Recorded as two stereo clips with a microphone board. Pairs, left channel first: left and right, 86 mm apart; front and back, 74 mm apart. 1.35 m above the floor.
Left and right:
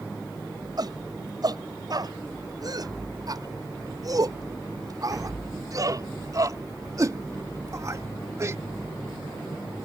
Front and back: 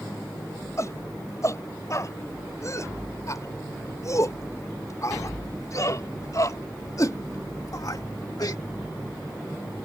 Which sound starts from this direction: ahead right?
A shout, at 0.8 s.